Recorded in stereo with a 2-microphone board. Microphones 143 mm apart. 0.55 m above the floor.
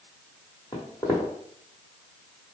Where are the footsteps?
25° left (ahead or behind), 1.2 m.